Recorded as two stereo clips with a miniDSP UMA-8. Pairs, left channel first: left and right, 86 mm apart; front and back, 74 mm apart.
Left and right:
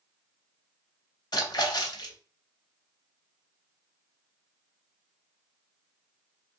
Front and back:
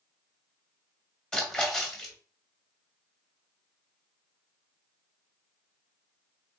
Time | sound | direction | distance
1.3 | a splash | 75° left | 1.0 m